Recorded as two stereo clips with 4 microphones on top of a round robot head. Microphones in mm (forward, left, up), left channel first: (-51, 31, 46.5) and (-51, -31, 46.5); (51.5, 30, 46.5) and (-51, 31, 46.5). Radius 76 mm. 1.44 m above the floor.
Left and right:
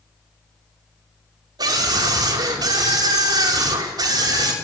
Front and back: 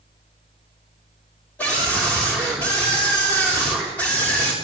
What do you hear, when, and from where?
1.6 s a scream: 80° right, 5.5 m